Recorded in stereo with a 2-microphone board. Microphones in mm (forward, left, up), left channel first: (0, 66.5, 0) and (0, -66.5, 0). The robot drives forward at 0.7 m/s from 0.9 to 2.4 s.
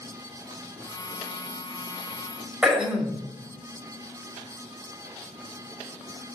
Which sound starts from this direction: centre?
Throat clearing, at 2.6 s.